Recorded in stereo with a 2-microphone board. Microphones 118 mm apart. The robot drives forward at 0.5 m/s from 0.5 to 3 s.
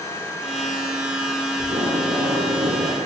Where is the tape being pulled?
60° right (ahead or behind), 10 m; by 3.1 s 65° right (ahead or behind), 9.5 m.